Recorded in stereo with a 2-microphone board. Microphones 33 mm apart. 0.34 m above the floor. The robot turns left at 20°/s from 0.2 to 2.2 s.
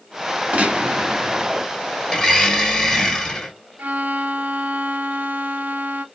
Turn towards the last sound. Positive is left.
turn(degrees=-75)  # may be behind; listen again after turning